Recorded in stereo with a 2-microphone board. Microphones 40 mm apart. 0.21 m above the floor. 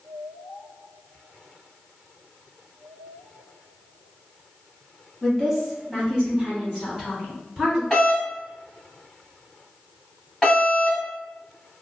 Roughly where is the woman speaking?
Centre.